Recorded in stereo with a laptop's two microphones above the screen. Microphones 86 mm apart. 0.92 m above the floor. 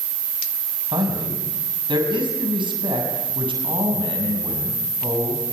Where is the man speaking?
70° right (ahead or behind), 6.5 m; by 5.4 s 85° right, 7.5 m.